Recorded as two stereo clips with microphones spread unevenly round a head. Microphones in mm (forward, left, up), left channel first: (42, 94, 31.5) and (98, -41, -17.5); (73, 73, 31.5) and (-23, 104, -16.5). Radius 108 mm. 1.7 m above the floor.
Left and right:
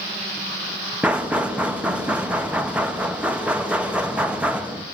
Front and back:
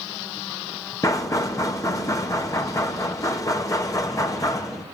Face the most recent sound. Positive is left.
turn(degrees=20)